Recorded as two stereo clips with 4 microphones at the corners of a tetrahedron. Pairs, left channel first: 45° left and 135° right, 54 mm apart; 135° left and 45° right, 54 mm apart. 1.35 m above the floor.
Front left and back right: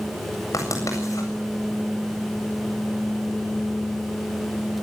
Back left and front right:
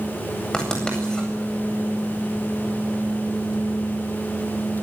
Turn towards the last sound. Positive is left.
turn(degrees=60)